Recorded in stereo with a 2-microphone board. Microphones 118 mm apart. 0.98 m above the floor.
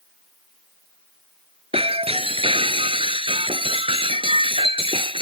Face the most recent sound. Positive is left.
turn(degrees=-55)  # may be behind; listen again after turning